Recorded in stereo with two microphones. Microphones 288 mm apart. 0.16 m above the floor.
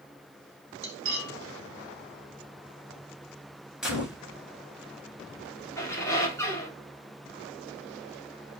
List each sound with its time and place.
0.8 s cutlery clinking: 45° right (ahead or behind), 1.0 m
3.8 s a gunshot: centre (ahead or behind), 0.9 m
5.8 s a squeak: 10° left (ahead or behind), 0.9 m